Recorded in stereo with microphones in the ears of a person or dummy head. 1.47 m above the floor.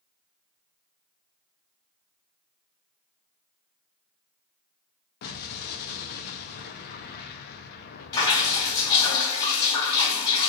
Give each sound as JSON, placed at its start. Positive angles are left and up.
{"t": 5.2, "sound": "an explosion", "side_deg": 60, "distance_m": 0.6}
{"t": 8.1, "sound": "dripping", "side_deg": 30, "distance_m": 2.0}